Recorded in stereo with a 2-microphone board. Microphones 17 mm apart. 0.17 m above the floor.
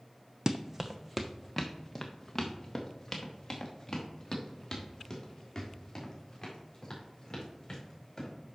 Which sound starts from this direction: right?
Running footsteps, at 0.5 s.